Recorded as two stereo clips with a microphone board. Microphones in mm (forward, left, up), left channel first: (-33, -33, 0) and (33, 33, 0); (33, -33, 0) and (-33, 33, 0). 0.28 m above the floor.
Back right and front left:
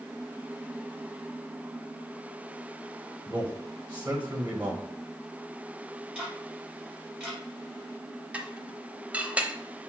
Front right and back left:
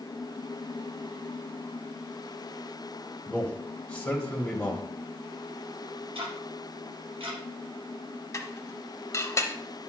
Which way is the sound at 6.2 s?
120° left.